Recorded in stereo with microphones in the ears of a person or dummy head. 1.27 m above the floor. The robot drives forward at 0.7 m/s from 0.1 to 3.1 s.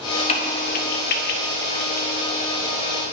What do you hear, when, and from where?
0.3 s a crack: 30° left (ahead or behind), 1.0 m; by 2.1 s 40° left (ahead or behind), 0.8 m